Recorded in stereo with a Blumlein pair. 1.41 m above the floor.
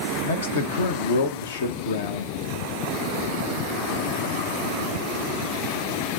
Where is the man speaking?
65° left, 1.1 m.